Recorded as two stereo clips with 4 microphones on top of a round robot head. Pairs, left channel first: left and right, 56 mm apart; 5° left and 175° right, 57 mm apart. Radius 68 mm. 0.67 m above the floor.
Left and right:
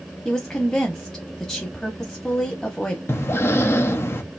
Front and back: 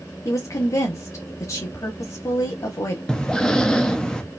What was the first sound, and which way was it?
A woman speaking, 15° left.